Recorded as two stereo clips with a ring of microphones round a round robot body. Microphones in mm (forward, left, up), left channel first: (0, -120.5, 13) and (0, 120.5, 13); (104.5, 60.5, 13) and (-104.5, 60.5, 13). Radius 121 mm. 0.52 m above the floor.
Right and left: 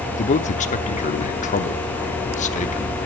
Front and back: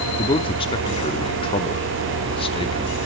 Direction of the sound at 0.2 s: 50° right.